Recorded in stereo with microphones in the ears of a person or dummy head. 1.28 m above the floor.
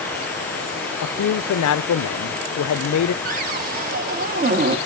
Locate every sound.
1.0 s a man speaking: 75° left (ahead or behind), 0.5 m
3.2 s a cupboard door: 40° right (ahead or behind), 0.8 m